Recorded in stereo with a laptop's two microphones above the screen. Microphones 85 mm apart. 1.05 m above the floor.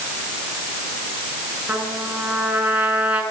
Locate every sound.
1.7 s a trumpet: 15° right (ahead or behind), 6 m